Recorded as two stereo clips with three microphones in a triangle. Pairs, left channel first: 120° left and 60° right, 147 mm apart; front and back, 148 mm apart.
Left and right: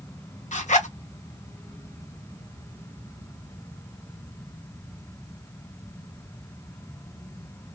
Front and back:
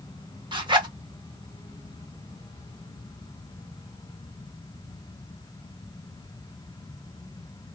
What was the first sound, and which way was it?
A zipper, 130° left.